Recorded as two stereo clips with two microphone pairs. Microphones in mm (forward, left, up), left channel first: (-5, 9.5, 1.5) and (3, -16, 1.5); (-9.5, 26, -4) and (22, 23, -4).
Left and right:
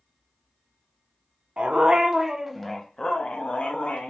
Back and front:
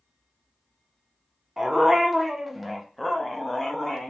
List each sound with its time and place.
1.6 s a dog barking: 75° right, 0.7 m; by 4.1 s 95° left, 0.9 m